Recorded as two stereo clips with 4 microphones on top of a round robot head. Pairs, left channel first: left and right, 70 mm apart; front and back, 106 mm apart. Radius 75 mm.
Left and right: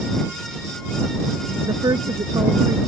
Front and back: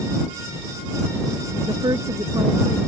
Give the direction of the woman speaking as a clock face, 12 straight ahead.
4 o'clock.